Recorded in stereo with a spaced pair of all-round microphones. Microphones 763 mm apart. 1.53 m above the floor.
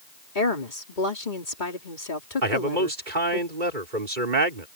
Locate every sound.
0.3 s a woman speaking: 85° left
2.4 s a man speaking: 85° right